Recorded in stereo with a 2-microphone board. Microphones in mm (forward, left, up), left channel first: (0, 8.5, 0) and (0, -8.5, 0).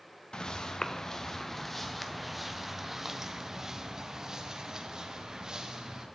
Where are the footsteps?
50° left (ahead or behind), 1.2 m; by 6.0 s 45° right (ahead or behind), 3 m.